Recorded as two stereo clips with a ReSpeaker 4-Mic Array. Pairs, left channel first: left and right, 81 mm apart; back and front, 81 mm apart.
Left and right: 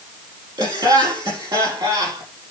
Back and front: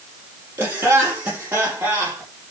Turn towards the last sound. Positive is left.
turn(degrees=-65)